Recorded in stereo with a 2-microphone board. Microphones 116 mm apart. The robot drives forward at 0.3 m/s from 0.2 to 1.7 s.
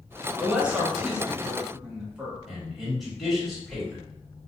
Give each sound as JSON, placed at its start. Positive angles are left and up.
{"t": 0.4, "sound": "a woman speaking", "side_deg": -10, "distance_m": 0.7}
{"t": 2.5, "sound": "a man speaking", "side_deg": 0, "distance_m": 1.3}